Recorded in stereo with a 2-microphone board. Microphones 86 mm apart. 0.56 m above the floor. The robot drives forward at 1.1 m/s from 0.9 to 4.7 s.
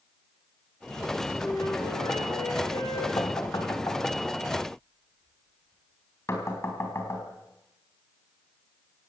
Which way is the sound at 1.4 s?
50° left (ahead or behind).